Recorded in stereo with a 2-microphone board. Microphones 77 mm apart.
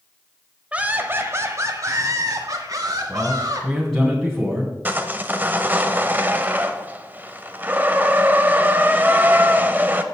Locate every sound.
0.7 s laughter: 15° right (ahead or behind), 1.1 m; by 3.7 s 50° right (ahead or behind), 3.5 m
3.1 s a man speaking: 5° left (ahead or behind), 2.5 m
4.8 s sawing: 25° right (ahead or behind), 0.8 m